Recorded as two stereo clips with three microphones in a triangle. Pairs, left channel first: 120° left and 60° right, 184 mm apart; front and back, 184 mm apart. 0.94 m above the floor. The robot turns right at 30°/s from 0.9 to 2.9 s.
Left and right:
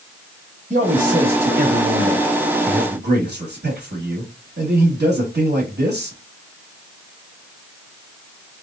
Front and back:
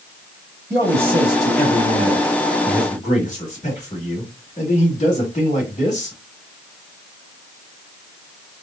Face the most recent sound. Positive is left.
turn(degrees=-50)